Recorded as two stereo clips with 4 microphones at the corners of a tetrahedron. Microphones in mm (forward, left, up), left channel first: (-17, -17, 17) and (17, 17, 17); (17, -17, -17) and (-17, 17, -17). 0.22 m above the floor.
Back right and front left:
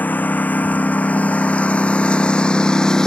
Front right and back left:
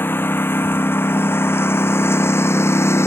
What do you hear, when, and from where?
0.0 s a lawn mower: 85° right; by 3.1 s 60° right